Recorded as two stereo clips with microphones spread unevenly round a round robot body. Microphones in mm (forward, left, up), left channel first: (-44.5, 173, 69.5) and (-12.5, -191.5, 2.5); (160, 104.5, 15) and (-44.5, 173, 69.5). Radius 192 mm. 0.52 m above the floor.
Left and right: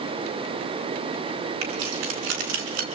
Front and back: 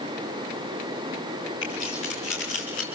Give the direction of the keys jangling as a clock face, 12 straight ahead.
3 o'clock.